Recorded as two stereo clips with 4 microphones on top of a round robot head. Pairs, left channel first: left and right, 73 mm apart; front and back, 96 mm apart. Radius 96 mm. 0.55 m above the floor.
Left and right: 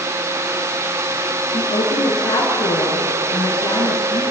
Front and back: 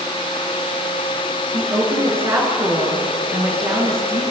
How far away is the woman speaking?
About 8.5 m.